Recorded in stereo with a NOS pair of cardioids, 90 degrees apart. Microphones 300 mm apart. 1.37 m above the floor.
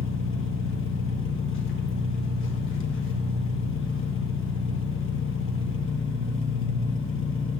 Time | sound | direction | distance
0.0 | an engine running | 45° left | 1.3 m